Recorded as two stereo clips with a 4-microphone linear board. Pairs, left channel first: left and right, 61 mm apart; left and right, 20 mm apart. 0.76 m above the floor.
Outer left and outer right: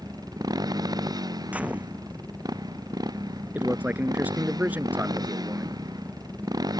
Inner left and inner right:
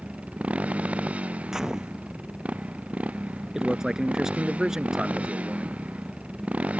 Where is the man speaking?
25° right (ahead or behind).